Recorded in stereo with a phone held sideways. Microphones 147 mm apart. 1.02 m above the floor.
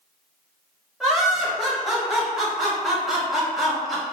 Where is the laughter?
Centre (ahead or behind), 1.3 m.